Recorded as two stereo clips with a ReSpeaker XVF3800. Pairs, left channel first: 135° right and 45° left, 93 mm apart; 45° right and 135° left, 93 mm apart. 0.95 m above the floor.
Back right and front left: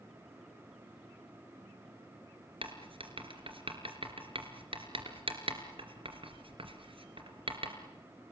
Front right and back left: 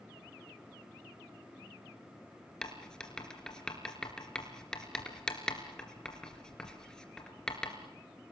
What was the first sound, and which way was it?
Writing, 35° left.